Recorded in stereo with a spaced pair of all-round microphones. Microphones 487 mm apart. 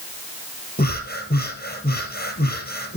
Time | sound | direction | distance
0.8 | breathing | 20° left (ahead or behind) | 4 m